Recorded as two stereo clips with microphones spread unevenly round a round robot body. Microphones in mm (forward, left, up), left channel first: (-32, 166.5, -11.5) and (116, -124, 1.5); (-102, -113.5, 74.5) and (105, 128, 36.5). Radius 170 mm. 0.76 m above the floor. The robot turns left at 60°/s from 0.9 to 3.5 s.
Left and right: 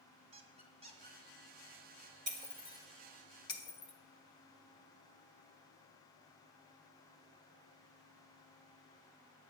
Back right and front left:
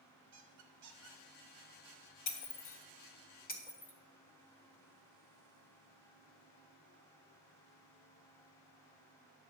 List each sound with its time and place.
0.3 s a squeak: 10° left, 1.5 m; by 1.2 s 10° right, 1.5 m
2.3 s breaking glass: 120° right, 1.4 m; by 3.9 s 165° left, 1.4 m